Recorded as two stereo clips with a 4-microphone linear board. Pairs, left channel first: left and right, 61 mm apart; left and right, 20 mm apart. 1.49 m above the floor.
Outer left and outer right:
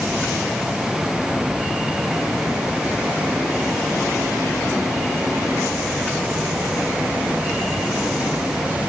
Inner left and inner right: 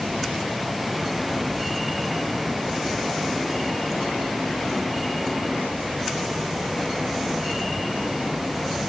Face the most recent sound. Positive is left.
No sound to turn to.